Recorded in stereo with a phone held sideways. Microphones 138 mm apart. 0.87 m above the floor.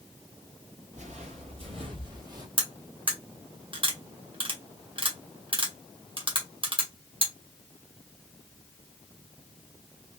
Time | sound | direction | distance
0.9 | footsteps | 60° right (ahead or behind) | 1.9 m
2.6 | cutlery clinking | 40° right (ahead or behind) | 1.1 m